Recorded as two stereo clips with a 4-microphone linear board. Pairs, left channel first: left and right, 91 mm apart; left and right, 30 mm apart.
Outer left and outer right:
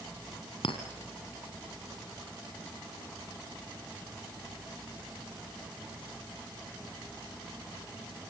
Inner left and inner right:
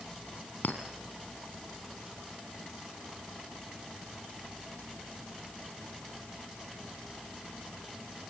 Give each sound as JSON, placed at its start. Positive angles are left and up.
{"t": 0.6, "sound": "a clink", "side_deg": 75, "distance_m": 2.5}